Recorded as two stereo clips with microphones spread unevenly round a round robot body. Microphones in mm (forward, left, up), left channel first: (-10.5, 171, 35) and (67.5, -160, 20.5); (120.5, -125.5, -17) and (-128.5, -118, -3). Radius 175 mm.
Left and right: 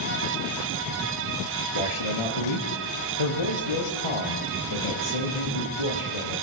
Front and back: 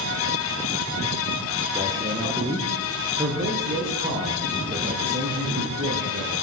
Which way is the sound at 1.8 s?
100° left.